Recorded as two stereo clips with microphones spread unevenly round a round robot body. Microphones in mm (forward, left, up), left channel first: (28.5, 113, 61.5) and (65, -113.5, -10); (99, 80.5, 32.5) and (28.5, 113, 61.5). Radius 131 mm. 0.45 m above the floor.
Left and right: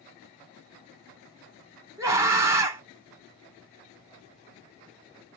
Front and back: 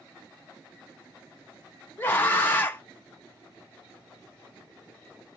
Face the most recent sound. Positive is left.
turn(degrees=-35)